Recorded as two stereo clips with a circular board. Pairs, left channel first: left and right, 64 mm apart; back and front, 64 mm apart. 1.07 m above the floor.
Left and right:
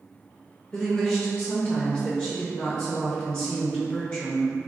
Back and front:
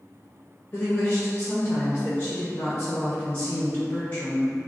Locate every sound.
0.7 s a woman speaking: 140° left, 0.5 m